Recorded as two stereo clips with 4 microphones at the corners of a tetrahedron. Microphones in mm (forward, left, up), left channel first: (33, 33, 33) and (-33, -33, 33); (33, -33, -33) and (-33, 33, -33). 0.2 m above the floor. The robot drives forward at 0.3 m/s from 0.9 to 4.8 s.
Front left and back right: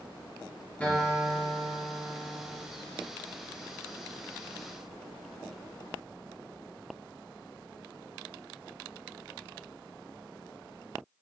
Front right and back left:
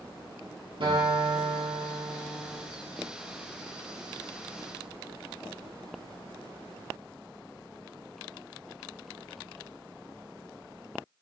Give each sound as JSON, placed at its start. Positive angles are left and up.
{"t": 0.8, "sound": "a guitar", "azimuth_deg": 120, "distance_m": 3.0}